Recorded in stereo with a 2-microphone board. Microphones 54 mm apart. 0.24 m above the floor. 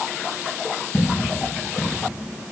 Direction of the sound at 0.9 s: 45° left (ahead or behind).